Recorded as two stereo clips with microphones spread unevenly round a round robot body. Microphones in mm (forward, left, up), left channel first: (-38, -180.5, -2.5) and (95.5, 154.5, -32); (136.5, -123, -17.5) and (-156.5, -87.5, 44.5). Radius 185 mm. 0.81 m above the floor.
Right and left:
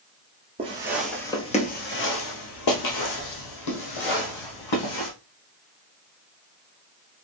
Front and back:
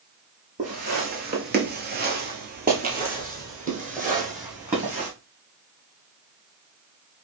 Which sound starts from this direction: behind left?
Footsteps, at 0.6 s.